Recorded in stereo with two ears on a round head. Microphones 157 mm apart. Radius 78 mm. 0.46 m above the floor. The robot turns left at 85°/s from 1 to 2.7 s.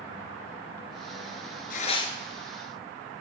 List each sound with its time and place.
1.7 s tearing paper: 55° left, 1.2 m; by 2.1 s 15° left, 1.2 m